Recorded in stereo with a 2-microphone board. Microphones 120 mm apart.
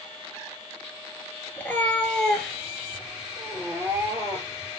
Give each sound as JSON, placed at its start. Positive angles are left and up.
{"t": 1.6, "sound": "a cat meowing", "side_deg": 20, "distance_m": 2.0}